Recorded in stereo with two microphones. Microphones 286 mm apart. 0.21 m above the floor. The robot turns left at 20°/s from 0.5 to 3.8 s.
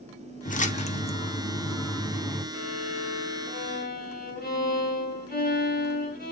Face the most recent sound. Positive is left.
turn(degrees=35)  # may be behind; listen again after turning